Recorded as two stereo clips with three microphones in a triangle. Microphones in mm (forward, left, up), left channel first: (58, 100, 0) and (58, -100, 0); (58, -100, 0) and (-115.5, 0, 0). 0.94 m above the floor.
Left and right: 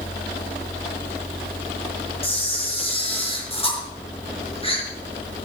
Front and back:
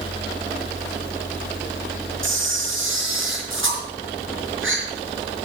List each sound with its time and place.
2.2 s a camera shutter: 150° left, 4.5 m